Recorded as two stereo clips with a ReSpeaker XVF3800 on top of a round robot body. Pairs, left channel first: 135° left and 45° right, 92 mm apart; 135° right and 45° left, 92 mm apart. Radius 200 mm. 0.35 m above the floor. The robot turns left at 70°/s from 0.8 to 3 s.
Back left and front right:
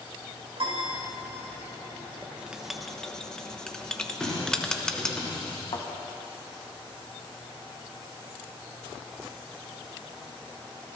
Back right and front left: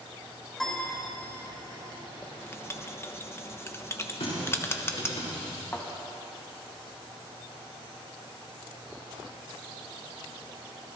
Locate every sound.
0.6 s a piano: 50° right, 4 m; by 1.0 s 60° right, 4 m
2.2 s writing: 95° right, 1.1 m; by 5.2 s 150° right, 1.1 m
4.2 s a running tap: 140° right, 4.5 m
5.7 s a thud: 155° left, 2 m